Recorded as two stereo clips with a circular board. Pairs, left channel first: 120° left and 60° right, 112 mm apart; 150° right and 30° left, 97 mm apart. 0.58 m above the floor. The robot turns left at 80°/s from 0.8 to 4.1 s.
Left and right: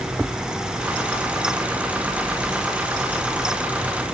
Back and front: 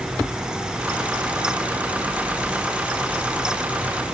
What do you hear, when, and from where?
Only background noise.